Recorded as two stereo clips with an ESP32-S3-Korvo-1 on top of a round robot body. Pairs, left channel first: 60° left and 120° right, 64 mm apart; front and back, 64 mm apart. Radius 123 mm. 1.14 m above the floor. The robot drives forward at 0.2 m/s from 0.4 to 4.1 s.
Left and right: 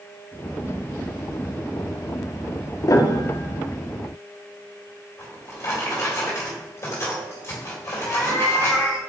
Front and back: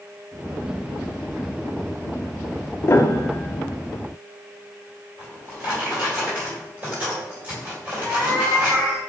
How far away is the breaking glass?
No breaking glass in this recording.